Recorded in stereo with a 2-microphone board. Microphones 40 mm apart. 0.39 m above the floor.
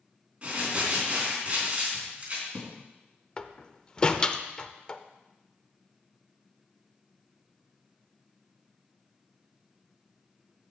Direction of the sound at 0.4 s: 30° right (ahead or behind).